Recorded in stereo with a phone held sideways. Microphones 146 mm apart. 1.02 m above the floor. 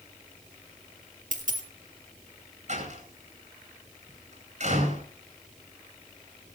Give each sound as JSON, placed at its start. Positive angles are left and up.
{"t": 1.3, "sound": "a dropped coin", "side_deg": -65, "distance_m": 2.5}
{"t": 2.7, "sound": "a door slam", "side_deg": -55, "distance_m": 9.5}